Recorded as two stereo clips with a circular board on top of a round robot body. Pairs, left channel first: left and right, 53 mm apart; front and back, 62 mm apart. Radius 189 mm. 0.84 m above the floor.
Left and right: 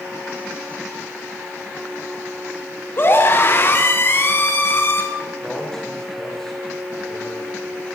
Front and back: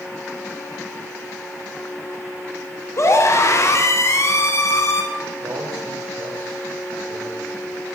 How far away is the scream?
About 2.5 m.